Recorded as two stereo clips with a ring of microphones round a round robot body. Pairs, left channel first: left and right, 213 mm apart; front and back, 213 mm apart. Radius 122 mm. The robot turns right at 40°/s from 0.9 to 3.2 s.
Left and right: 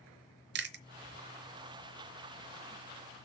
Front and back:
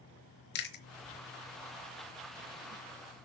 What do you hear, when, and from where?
0.6 s chewing: 50° right, 0.9 m